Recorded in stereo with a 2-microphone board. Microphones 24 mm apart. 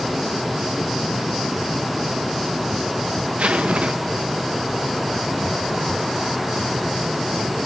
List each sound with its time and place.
3.4 s a zipper: 75° right (ahead or behind), 1.2 m